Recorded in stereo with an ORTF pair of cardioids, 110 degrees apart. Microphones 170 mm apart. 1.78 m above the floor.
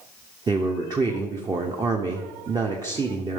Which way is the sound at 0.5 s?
25° right.